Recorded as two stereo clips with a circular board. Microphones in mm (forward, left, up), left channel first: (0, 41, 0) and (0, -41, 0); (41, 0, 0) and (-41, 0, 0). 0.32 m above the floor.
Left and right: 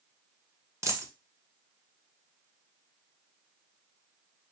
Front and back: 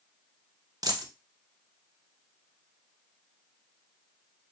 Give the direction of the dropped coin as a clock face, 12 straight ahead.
5 o'clock.